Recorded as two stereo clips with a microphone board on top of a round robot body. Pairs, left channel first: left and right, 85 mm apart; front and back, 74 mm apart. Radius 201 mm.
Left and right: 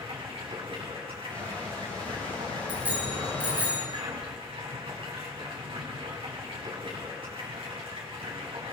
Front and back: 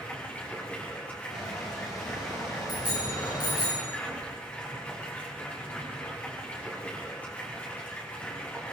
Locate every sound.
0.0 s running water: 70° right, 6 m
1.3 s a squeak: 15° left, 9 m
2.7 s a bicycle bell: 15° right, 9.5 m